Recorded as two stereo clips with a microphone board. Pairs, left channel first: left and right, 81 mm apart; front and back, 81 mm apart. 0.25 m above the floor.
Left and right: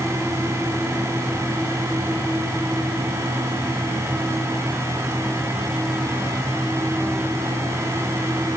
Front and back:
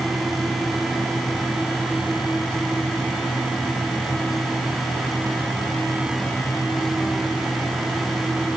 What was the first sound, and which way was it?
Only background noise.